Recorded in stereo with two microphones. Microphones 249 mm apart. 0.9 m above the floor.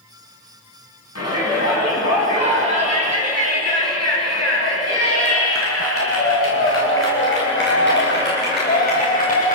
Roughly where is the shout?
Left.